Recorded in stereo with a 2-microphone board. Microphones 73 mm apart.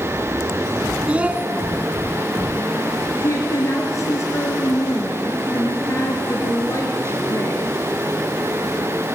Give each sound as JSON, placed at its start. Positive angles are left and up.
{"t": 1.1, "sound": "a child speaking", "side_deg": -20, "distance_m": 0.8}
{"t": 3.2, "sound": "a woman speaking", "side_deg": 45, "distance_m": 1.8}